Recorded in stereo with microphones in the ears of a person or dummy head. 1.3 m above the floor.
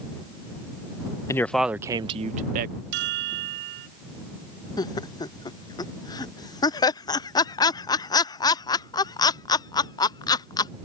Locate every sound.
1.3 s a man speaking: 15° left (ahead or behind); by 2.8 s 50° right (ahead or behind)
2.9 s a chime: 65° right (ahead or behind)
4.8 s laughter: 20° left (ahead or behind)